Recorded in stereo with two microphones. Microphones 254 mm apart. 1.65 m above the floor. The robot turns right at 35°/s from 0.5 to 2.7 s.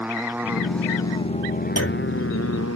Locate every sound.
0.0 s a motorcycle: 5° right; by 2.8 s 70° left
1.8 s a clunk: 65° left (ahead or behind); by 2.1 s 55° left (ahead or behind)